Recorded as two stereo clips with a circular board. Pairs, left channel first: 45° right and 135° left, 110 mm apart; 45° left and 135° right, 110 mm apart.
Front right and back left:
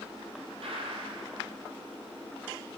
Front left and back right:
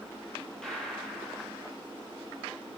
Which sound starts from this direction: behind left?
A gunshot, at 0.6 s.